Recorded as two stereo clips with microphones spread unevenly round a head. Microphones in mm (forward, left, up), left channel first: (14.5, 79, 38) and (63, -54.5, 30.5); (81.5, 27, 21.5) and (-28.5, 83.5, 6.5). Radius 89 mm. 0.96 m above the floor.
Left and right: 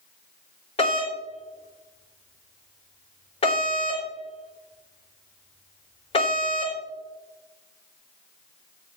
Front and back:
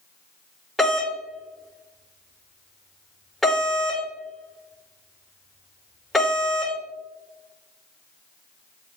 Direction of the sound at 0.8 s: 65° left.